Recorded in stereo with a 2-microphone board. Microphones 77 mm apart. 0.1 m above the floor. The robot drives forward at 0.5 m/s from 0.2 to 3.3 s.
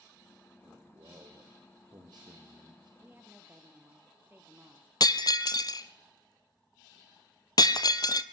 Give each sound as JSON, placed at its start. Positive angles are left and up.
{"t": 0.6, "sound": "a man speaking", "side_deg": -55, "distance_m": 4.5}
{"t": 3.0, "sound": "a woman speaking", "side_deg": -25, "distance_m": 1.9}
{"t": 5.0, "sound": "breaking glass", "side_deg": 55, "distance_m": 0.8}